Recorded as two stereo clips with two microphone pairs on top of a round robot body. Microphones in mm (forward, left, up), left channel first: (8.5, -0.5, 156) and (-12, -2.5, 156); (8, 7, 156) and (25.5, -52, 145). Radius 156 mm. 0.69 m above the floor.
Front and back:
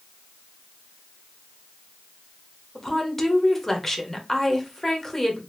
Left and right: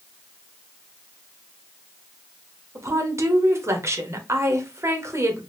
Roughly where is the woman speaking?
Ahead right.